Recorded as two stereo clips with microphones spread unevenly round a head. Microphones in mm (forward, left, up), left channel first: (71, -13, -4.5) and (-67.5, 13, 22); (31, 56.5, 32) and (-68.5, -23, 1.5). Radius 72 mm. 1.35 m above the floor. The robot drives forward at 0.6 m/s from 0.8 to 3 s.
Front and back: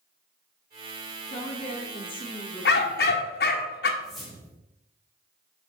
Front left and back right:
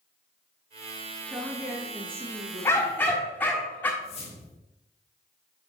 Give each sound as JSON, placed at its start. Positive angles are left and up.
{"t": 1.3, "sound": "a woman speaking", "azimuth_deg": -50, "distance_m": 1.8}
{"t": 2.6, "sound": "a dog barking", "azimuth_deg": -25, "distance_m": 1.6}
{"t": 4.0, "sound": "a whoosh", "azimuth_deg": 80, "distance_m": 2.5}